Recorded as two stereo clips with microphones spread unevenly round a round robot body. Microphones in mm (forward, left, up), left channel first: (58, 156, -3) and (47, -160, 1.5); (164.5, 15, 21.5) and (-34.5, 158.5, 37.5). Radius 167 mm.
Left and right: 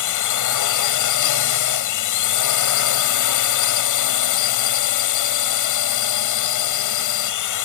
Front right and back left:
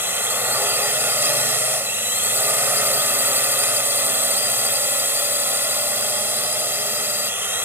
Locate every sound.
0.0 s a drone: 65° left